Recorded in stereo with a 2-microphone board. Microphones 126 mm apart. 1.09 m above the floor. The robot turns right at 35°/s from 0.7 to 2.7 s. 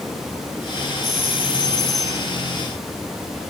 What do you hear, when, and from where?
1.0 s a doorbell: 115° left, 3 m; by 2.3 s 160° left, 3 m